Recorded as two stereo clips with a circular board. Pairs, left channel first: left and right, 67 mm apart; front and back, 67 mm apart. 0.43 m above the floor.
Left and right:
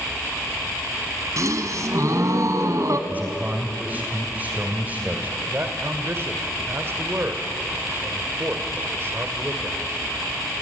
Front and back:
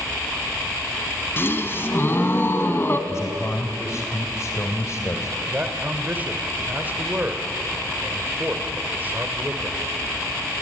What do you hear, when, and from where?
1.4 s a gasp: 55° right, 1.6 m
3.1 s a man speaking: 30° right, 2 m
5.4 s a man speaking: 125° right, 2 m